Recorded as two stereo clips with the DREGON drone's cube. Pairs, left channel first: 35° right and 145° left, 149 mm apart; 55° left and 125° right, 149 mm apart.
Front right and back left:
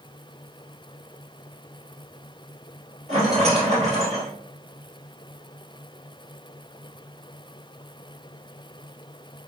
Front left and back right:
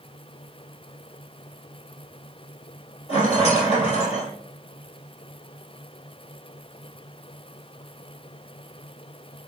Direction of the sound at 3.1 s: 105° left.